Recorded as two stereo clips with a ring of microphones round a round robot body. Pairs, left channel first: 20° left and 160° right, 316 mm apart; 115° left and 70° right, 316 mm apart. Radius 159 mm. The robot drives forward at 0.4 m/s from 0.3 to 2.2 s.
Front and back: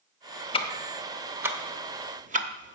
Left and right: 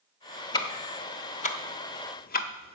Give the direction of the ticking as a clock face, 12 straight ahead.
10 o'clock.